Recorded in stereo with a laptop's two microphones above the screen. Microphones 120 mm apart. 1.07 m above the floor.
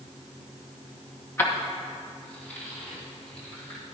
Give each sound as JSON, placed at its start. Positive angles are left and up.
{"t": 1.4, "sound": "keys jangling", "side_deg": 20, "distance_m": 1.0}